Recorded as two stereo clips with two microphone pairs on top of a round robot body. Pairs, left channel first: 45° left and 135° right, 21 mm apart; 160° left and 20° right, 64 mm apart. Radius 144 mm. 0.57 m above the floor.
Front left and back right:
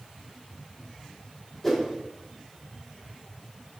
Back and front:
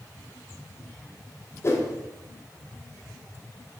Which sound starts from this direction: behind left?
A whoosh, at 1.6 s.